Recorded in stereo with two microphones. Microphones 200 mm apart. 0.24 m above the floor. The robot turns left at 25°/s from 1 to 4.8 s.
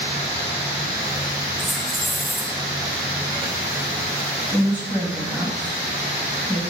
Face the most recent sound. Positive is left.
turn(degrees=15)  # may be behind; listen again after turning